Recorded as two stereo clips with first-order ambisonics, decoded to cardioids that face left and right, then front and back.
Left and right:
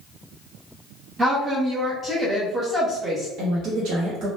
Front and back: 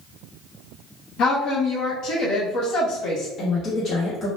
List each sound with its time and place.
1.2 s a woman speaking: 25° right, 0.9 m
3.4 s a woman speaking: 60° right, 0.9 m